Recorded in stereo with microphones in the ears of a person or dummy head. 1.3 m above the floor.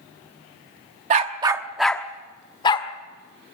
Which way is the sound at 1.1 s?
40° right (ahead or behind).